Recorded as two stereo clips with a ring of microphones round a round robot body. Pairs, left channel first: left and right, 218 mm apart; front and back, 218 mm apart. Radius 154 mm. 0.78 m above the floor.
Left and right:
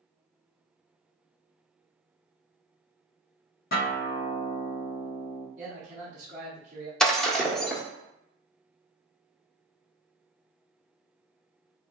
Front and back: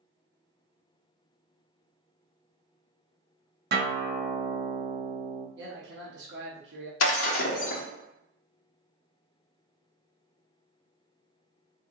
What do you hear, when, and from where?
3.7 s a guitar: 145° left, 1.0 m
5.6 s a man speaking: 145° right, 0.9 m
7.0 s breaking glass: 5° left, 1.1 m